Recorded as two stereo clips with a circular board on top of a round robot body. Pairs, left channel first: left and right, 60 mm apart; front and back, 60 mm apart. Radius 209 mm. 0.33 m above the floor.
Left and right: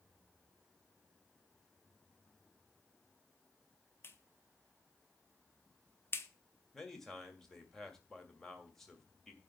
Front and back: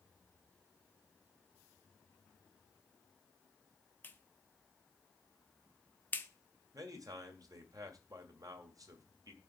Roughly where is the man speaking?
Behind.